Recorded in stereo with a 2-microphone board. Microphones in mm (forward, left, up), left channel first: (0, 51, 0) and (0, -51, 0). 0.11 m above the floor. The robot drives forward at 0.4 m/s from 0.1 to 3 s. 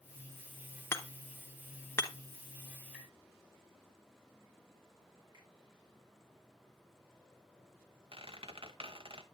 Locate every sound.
0.9 s hammering: 25° left (ahead or behind), 1.1 m
2.9 s tapping: 5° right (ahead or behind), 3 m
5.3 s a finger snap: 45° right (ahead or behind), 7 m
8.1 s a squeak: 60° right (ahead or behind), 0.9 m